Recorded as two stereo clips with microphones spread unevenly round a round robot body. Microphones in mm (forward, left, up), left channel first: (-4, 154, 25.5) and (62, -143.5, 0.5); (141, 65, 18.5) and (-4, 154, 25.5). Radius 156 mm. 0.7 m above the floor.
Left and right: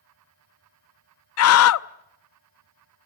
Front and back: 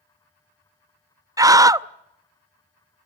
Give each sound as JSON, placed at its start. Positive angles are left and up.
{"t": 1.4, "sound": "a scream", "azimuth_deg": 80, "distance_m": 0.7}